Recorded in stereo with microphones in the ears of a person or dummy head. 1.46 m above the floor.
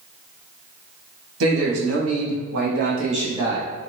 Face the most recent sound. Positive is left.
turn(degrees=-5)  # may be behind; listen again after turning